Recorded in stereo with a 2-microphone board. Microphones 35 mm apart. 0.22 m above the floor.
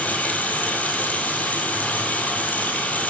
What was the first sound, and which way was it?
Running water, 50° left (ahead or behind).